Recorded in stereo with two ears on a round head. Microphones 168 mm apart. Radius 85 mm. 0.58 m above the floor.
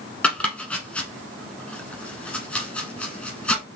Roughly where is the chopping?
Centre.